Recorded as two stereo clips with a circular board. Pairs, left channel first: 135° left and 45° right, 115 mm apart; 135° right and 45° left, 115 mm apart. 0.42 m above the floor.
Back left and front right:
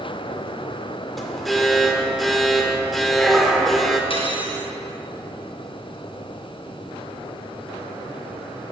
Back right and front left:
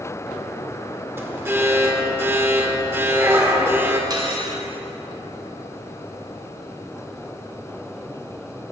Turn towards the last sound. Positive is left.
turn(degrees=95)